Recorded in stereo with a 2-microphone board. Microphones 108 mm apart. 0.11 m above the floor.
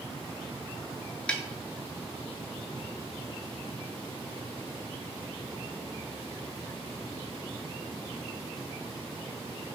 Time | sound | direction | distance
1.3 | a snare drum | 10° left (ahead or behind) | 0.5 m